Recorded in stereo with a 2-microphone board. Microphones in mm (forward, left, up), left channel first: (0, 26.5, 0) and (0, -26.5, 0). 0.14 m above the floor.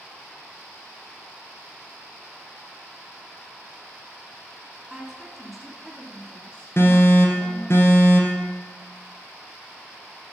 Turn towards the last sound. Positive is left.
turn(degrees=50)  # may be behind; listen again after turning